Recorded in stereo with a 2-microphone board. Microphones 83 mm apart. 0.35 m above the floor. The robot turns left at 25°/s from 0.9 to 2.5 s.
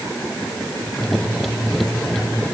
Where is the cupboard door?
No cupboard door in this recording.